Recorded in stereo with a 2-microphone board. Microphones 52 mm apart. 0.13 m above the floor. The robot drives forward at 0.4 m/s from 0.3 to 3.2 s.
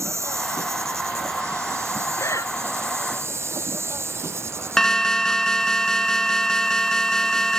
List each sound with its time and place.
0.0 s an insect: 65° right (ahead or behind); by 7.6 s 55° right (ahead or behind)
2.2 s breathing: 75° left (ahead or behind)
4.8 s an alarm: 10° left (ahead or behind)